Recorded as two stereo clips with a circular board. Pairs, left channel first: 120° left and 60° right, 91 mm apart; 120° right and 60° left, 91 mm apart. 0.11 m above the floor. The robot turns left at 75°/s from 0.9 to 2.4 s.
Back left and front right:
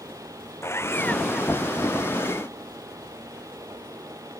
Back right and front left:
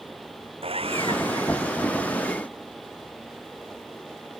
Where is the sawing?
60° left; by 1.7 s 5° right.